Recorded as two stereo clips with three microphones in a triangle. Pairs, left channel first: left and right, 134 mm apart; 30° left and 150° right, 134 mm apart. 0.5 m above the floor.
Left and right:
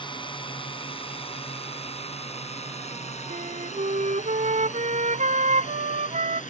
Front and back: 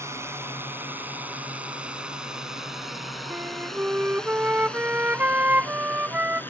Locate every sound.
0.0 s a drone: 140° left; by 6.5 s 105° left
3.3 s a flute: 75° right